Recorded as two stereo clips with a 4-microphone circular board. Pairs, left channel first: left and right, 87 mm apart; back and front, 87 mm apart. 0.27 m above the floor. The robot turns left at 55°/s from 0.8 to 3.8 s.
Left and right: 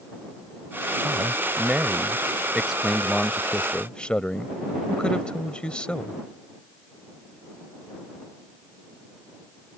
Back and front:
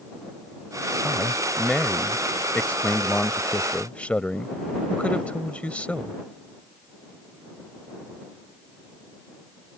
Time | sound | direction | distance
1.0 | a man speaking | 65° right | ?